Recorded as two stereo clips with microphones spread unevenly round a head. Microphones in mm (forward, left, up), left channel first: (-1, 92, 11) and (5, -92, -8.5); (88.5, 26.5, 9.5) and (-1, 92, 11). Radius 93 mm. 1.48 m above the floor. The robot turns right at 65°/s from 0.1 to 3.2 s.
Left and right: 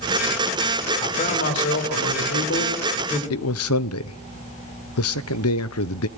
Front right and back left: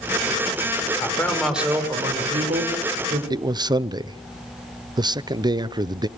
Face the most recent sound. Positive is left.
turn(degrees=90)